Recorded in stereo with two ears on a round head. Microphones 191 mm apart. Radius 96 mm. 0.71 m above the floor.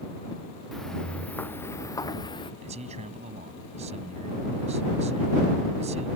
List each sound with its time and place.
0.7 s footsteps: centre (ahead or behind); by 2.5 s 25° left (ahead or behind)
2.6 s a man speaking: 30° right (ahead or behind)